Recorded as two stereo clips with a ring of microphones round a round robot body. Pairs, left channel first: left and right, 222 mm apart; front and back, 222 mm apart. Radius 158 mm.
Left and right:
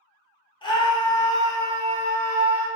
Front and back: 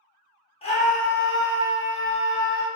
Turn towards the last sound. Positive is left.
turn(degrees=10)